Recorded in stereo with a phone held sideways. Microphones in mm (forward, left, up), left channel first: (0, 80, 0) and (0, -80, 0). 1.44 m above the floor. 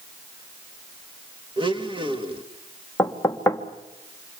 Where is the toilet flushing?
I don't hear a toilet flushing.